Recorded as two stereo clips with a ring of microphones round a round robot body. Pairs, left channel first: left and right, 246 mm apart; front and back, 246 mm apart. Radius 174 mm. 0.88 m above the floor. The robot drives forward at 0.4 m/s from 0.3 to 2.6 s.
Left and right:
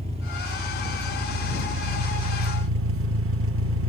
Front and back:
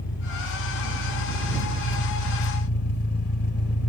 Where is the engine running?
25° right, 1.4 m; by 3.9 s 55° right, 0.7 m.